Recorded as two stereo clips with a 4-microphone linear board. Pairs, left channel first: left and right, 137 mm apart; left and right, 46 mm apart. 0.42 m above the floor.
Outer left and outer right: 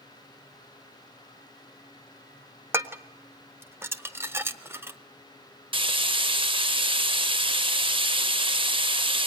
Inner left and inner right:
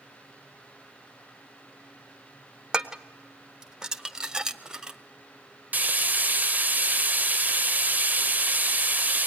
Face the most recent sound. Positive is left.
turn(degrees=-35)  # may be behind; listen again after turning